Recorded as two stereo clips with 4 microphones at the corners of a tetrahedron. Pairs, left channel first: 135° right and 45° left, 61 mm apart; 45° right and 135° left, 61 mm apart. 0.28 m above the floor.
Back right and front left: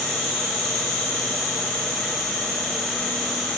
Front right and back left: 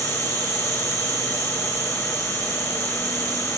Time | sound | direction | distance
0.0 | an insect | 155° left | 3.5 m